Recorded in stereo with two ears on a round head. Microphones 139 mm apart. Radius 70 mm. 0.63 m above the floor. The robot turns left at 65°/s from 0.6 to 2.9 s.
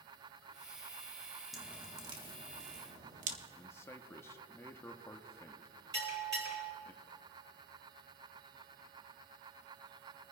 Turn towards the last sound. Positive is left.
turn(degrees=-25)  # may be behind; listen again after turning